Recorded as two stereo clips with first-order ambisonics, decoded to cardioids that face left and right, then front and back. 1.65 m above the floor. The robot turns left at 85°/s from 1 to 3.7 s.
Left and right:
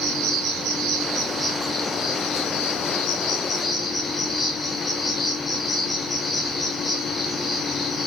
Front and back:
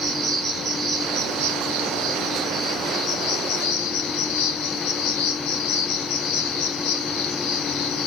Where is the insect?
125° right, 3 m; by 8.1 s 5° left, 3 m.